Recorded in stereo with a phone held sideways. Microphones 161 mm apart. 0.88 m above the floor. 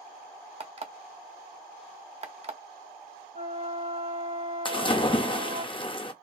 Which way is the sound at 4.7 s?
30° left (ahead or behind).